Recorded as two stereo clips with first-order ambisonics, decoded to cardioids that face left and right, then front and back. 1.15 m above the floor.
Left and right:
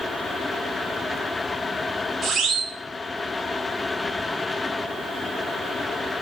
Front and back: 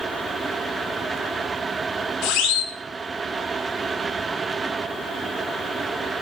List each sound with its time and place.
2.2 s a siren: 25° right, 5 m